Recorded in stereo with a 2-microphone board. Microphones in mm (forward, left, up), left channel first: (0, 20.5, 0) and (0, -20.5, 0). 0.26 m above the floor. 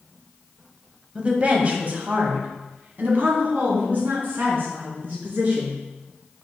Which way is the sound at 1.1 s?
25° right (ahead or behind).